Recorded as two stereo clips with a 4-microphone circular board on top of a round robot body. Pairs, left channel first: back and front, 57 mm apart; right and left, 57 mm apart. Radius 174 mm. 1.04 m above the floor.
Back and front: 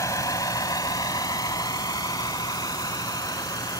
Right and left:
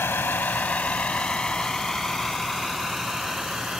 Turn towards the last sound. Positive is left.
turn(degrees=170)